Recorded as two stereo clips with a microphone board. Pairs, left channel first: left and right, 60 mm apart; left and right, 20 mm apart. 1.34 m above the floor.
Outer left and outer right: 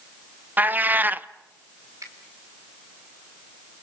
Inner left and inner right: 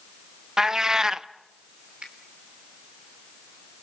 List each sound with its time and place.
0.6 s a cat meowing: 30° right (ahead or behind), 0.6 m
2.0 s a finger snap: 70° right (ahead or behind), 3.5 m